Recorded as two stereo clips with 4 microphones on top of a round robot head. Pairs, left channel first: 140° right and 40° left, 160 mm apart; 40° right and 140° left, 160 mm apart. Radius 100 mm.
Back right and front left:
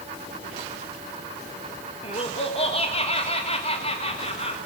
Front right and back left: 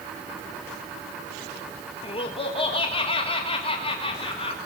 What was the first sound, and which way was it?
Laughter, 95° right.